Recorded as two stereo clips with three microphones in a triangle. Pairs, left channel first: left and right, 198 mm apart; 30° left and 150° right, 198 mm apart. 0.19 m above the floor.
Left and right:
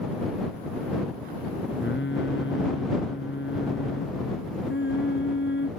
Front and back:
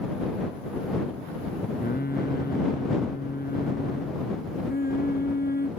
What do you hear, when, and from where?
1.8 s singing: 70° left